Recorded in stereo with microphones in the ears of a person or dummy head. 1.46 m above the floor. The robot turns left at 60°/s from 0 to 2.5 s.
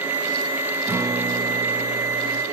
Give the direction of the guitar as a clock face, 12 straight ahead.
12 o'clock.